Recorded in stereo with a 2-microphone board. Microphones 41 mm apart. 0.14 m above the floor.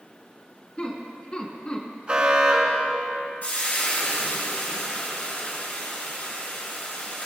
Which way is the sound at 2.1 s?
25° right (ahead or behind).